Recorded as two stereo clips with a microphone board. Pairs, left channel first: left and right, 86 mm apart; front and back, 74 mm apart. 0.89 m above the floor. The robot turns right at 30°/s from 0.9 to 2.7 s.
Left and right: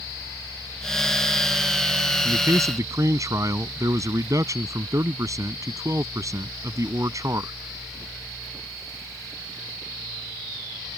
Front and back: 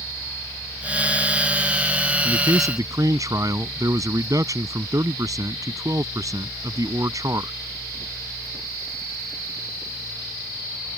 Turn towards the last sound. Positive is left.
turn(degrees=-140)